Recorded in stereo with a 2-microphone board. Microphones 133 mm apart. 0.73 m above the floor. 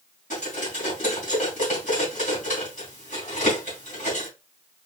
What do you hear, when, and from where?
0.3 s cutlery clinking: 85° left, 3.5 m